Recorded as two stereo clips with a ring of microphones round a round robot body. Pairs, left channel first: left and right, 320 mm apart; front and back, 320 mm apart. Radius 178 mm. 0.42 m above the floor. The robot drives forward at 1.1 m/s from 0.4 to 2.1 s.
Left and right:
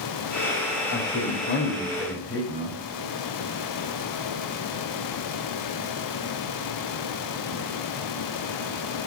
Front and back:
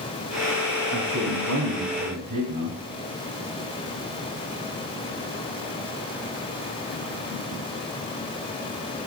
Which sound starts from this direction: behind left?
A man speaking, at 0.9 s.